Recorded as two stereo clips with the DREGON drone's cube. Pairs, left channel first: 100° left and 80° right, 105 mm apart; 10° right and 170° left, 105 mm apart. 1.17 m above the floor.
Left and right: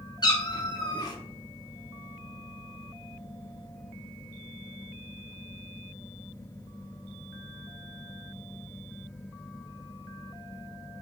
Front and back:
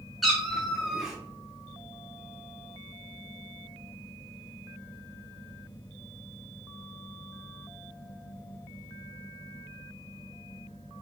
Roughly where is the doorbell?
I don't hear a doorbell.